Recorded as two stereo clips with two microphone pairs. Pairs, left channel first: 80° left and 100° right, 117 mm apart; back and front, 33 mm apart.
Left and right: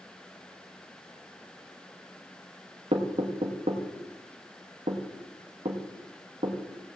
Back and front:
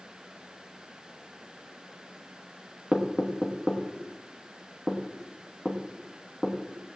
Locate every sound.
2.9 s knocking: 85° right, 1.3 m